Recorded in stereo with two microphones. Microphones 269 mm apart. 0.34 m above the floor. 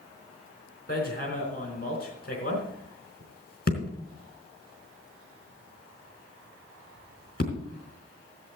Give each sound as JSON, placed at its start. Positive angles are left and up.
{"t": 0.9, "sound": "hammering", "side_deg": 35, "distance_m": 4.0}